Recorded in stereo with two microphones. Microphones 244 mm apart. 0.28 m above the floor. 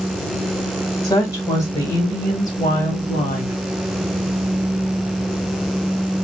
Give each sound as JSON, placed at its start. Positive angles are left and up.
{"t": 1.0, "sound": "a woman speaking", "side_deg": 20, "distance_m": 1.5}